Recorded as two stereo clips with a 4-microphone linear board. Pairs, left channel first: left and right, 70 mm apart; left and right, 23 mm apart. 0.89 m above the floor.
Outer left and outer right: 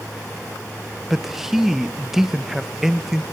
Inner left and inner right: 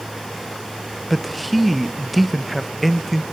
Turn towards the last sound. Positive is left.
turn(degrees=-5)  # may be behind; listen again after turning